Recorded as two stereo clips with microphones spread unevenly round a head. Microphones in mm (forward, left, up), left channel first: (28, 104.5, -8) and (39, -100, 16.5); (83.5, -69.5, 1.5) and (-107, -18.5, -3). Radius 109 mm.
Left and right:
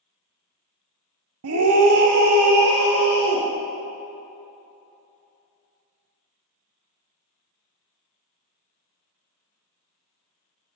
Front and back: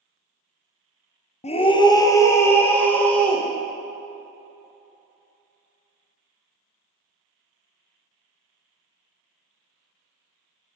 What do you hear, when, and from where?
1.4 s a scream: 75° right, 0.6 m; by 3.5 s 100° right, 1.8 m